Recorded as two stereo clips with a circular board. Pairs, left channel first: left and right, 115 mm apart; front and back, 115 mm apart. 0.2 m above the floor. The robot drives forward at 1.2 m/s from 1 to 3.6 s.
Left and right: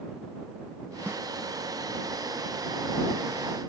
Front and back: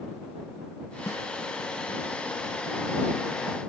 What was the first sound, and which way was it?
A snare drum, 35° right.